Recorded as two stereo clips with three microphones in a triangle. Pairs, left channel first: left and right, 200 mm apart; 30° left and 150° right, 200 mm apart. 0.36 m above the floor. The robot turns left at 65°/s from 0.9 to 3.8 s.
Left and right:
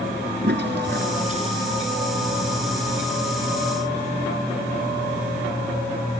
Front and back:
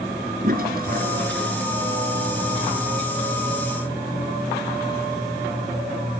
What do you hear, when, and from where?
0.4 s a toilet flushing: 115° right; by 1.7 s 165° right